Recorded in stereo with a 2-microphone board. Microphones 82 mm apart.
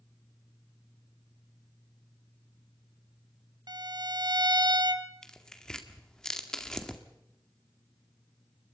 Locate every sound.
3.7 s a violin: 60° right (ahead or behind), 0.9 m
5.2 s tearing paper: 10° left (ahead or behind), 1.8 m